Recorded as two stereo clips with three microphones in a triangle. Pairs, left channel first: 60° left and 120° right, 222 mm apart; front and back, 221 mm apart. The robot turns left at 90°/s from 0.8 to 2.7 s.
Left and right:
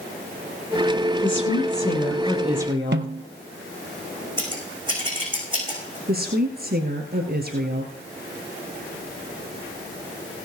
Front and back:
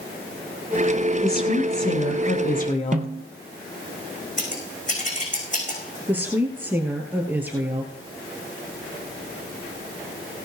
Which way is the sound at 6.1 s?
100° right.